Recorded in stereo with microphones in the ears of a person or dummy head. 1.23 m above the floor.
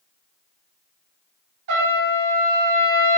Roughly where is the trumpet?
Right.